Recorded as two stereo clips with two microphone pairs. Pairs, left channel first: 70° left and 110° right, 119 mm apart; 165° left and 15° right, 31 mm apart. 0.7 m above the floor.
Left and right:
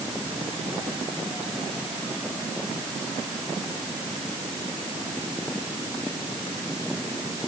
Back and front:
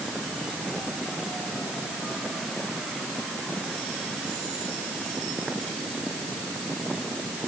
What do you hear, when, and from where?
Only background noise.